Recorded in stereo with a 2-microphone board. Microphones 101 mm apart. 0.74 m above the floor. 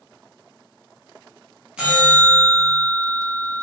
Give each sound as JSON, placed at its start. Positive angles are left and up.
{"t": 1.8, "sound": "a bell", "side_deg": -10, "distance_m": 0.9}